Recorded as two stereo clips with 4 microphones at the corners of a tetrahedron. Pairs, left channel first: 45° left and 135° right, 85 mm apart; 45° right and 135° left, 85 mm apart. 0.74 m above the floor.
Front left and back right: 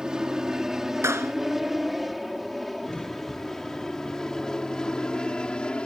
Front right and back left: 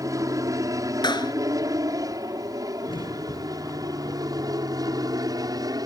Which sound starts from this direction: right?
A clap, at 1.0 s.